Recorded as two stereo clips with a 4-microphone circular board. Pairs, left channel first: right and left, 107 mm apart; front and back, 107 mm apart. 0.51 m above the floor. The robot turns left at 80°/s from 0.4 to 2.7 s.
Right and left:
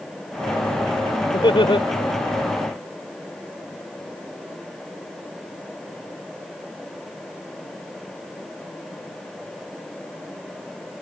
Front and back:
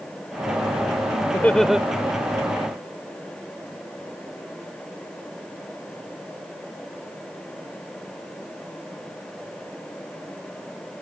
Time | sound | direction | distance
1.3 | laughter | 60° right | ?